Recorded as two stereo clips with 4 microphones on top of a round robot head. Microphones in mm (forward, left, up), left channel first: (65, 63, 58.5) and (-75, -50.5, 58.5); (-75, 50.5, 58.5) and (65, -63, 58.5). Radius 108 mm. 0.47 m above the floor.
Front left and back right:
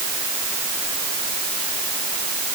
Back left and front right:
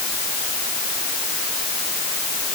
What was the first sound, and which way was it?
Only background noise.